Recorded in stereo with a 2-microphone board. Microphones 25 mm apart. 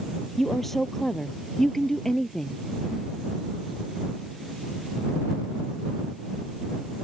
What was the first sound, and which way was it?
A woman speaking, 10° left (ahead or behind).